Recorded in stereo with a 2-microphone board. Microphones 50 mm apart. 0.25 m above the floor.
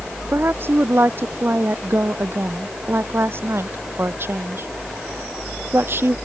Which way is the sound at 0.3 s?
50° right (ahead or behind).